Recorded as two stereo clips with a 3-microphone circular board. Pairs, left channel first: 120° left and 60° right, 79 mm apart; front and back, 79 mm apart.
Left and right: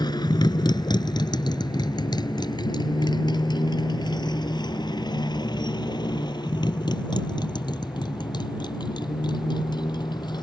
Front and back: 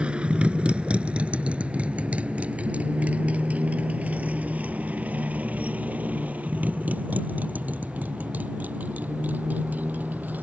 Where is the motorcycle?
105° left; by 10.4 s 115° left.